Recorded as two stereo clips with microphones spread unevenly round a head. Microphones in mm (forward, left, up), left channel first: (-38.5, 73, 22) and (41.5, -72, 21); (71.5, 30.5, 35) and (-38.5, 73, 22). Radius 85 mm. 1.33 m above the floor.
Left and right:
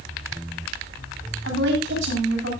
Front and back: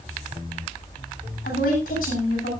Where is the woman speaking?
45° right, 9 m.